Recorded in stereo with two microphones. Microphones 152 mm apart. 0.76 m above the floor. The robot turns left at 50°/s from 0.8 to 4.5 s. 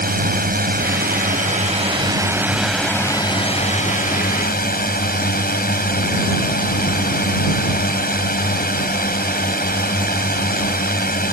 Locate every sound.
0.0 s a drone: 85° right; by 11.3 s 90° left